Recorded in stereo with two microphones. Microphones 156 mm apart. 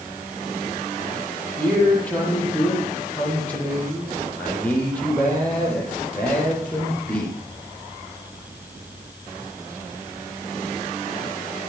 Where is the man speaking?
10° left (ahead or behind), 8 m.